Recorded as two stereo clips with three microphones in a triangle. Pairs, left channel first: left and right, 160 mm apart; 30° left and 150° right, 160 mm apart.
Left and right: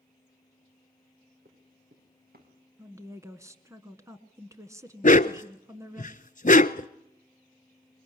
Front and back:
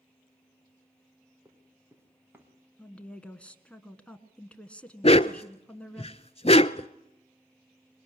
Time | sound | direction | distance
1.4 | running footsteps | 75° right | 3.5 m
2.8 | a woman speaking | 45° right | 1.3 m
5.0 | a dog barking | 70° left | 0.5 m